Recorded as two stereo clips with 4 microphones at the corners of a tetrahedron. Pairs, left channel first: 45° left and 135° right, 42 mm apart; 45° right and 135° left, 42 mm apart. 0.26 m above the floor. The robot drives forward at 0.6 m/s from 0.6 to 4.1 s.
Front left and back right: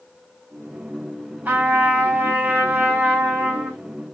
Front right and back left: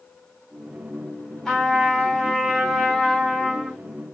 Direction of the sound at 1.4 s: 115° right.